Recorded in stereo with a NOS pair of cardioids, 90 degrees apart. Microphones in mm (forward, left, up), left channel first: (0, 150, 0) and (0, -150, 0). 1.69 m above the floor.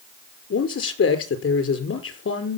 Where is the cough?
I don't hear a cough.